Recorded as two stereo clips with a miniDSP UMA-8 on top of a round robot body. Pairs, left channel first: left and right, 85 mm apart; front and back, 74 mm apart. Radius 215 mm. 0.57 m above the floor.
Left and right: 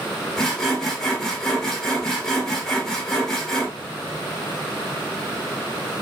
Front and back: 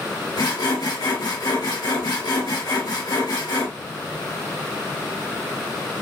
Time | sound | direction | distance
0.4 | sawing | 5° left | 1.9 m